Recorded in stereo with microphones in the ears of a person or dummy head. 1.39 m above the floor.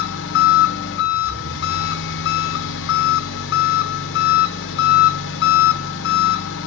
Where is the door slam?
I don't hear a door slam.